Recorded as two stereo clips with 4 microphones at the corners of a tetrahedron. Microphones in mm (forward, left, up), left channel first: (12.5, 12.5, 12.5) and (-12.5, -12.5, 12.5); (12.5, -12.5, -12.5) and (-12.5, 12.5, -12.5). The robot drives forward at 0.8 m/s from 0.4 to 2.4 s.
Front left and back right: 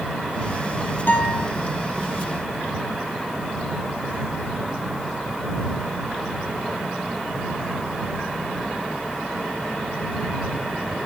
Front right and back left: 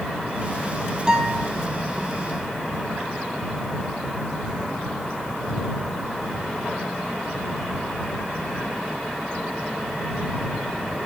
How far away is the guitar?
About 2.5 m.